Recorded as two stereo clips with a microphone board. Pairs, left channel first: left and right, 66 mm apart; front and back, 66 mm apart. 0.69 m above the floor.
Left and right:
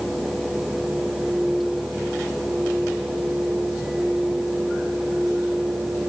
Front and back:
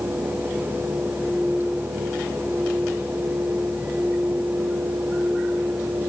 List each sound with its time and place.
Only background noise.